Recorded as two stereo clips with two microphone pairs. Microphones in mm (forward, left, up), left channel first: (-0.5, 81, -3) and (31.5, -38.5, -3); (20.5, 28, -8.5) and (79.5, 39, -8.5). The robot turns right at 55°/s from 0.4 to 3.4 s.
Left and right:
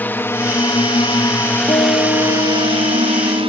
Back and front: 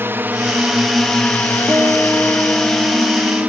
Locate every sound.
0.0 s a drone: 35° left; by 3.5 s 45° right
1.7 s a guitar: 60° left; by 3.5 s 155° left